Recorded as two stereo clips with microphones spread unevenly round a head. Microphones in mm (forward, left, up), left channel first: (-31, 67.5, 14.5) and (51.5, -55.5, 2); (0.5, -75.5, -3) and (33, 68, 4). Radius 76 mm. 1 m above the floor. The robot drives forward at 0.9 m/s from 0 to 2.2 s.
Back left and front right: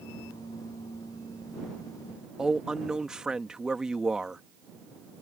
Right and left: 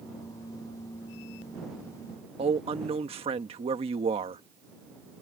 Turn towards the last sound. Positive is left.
turn(degrees=25)